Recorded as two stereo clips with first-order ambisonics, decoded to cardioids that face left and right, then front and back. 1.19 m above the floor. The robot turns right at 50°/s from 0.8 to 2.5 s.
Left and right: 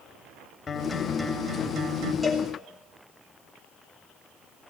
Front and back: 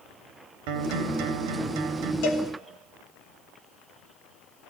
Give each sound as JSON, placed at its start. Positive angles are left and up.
{"t": 0.7, "sound": "a guitar", "azimuth_deg": 165, "distance_m": 2.5}
{"t": 2.2, "sound": "a cowbell", "azimuth_deg": -5, "distance_m": 3.0}